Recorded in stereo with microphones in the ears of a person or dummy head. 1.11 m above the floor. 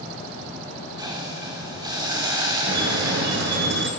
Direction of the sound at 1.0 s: 20° right (ahead or behind).